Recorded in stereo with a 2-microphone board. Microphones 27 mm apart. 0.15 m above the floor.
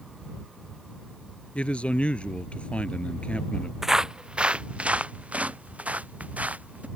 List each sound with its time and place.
1.6 s a man speaking: 45° left (ahead or behind)
3.8 s footsteps: 15° right (ahead or behind); by 6.9 s 70° right (ahead or behind)